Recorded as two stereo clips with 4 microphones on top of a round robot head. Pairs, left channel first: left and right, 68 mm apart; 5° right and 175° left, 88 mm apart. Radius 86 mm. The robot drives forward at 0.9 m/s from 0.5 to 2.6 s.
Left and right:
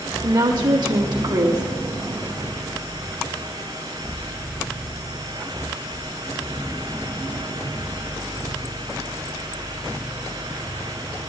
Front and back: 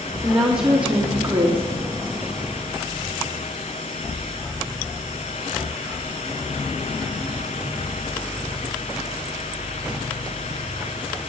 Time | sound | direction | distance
0.2 | a woman speaking | 100° right | 2.0 m